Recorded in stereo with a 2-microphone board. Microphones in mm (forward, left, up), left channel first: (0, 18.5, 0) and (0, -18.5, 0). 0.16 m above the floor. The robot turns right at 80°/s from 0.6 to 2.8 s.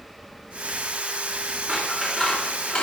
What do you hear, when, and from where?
1.7 s scissors: 35° right, 2 m; by 2.8 s 55° left, 2 m